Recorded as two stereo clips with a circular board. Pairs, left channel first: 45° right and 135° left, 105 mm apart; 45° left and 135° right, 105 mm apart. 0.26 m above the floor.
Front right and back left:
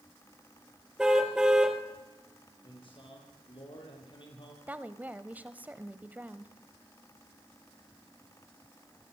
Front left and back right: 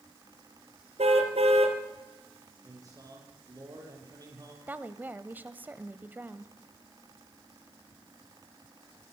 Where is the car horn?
140° right, 2.5 m.